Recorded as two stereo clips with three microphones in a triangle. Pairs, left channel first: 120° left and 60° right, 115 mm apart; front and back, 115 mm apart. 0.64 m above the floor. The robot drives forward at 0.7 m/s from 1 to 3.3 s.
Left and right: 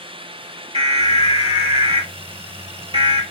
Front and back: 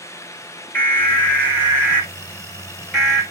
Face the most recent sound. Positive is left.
turn(degrees=-95)